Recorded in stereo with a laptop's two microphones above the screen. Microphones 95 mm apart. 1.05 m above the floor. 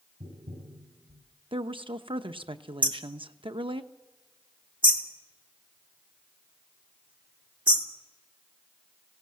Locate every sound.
0.2 s tapping: 80° right, 6.5 m
1.5 s a woman speaking: 70° right (ahead or behind), 0.9 m
2.8 s hammering: 60° right (ahead or behind), 2.5 m